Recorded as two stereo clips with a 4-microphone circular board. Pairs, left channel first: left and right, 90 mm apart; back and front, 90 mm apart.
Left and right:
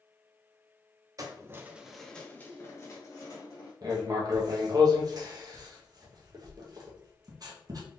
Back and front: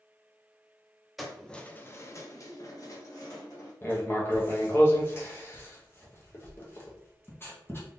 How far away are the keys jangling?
About 0.7 m.